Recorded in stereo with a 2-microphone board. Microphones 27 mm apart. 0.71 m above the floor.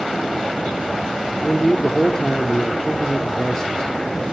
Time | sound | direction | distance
1.4 | a man speaking | 25° left (ahead or behind) | 1.3 m